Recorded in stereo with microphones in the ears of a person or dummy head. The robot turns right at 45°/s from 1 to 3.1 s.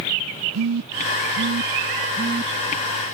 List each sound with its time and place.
0.5 s a phone buzzing: 90° right; by 2.5 s 20° right (ahead or behind)